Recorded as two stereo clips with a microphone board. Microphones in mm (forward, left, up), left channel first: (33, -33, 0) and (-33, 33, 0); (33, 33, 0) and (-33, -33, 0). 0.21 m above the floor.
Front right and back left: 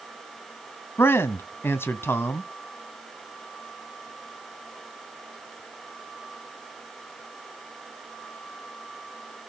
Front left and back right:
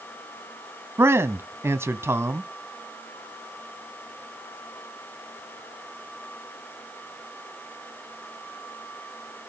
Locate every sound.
1.0 s a man speaking: 90° right, 1.5 m